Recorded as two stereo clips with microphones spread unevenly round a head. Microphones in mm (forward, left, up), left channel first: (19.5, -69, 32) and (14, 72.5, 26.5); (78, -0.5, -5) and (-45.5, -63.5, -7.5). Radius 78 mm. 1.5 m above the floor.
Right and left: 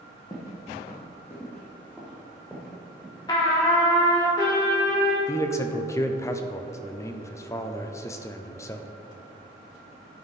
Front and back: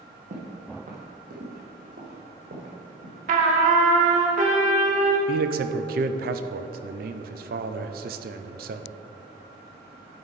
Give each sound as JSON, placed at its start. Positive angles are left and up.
{"t": 0.3, "sound": "footsteps", "azimuth_deg": -145, "distance_m": 2.5}
{"t": 3.3, "sound": "a trumpet", "azimuth_deg": -150, "distance_m": 1.5}
{"t": 5.3, "sound": "a man speaking", "azimuth_deg": -160, "distance_m": 0.6}